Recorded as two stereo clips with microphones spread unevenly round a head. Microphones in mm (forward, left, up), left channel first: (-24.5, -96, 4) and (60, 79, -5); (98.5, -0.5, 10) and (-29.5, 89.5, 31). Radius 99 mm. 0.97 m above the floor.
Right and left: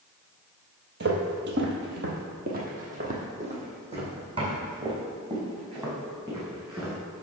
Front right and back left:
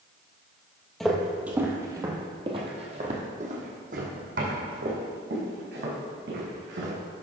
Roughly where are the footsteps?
Ahead left.